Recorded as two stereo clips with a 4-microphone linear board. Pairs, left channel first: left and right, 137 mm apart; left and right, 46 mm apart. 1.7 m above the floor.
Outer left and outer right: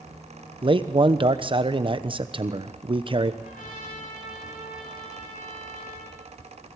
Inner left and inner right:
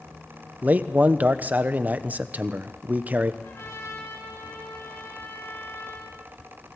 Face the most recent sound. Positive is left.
turn(degrees=85)